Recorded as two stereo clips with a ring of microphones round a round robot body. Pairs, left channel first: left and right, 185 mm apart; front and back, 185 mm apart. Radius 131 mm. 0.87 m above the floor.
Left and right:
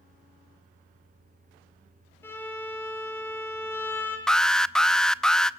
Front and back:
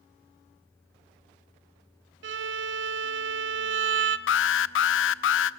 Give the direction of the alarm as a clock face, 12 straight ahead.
12 o'clock.